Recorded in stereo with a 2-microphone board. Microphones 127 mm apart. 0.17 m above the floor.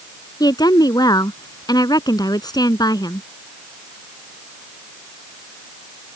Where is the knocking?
No knocking in this recording.